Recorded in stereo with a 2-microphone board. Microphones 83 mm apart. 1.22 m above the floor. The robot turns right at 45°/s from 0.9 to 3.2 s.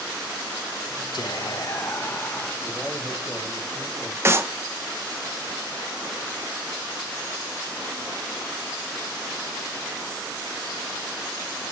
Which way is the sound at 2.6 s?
15° right (ahead or behind).